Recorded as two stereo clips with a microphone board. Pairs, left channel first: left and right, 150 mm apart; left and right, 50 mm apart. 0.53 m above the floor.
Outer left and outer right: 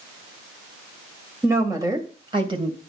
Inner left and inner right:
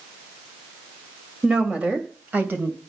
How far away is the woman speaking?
About 2.5 m.